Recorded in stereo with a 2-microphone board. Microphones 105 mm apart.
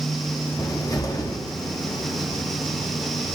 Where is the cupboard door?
30° left (ahead or behind), 0.8 m.